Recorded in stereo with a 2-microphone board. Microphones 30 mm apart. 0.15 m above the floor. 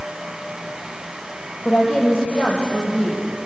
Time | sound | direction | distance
1.6 | a woman speaking | 5° left (ahead or behind) | 4 m